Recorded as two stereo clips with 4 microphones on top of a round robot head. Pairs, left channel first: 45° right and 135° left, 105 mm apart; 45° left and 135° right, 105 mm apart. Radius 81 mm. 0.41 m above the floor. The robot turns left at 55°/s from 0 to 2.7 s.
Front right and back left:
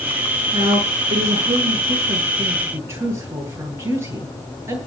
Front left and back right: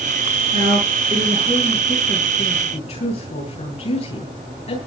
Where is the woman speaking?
170° right, 10 m; by 4.8 s 70° left, 10 m.